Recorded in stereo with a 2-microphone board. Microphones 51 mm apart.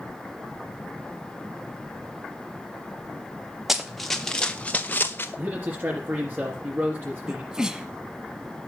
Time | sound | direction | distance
3.7 | running footsteps | 5° right (ahead or behind) | 1.6 m
5.4 | a man speaking | 40° right (ahead or behind) | 3.5 m
7.3 | a sneeze | 15° right (ahead or behind) | 1.3 m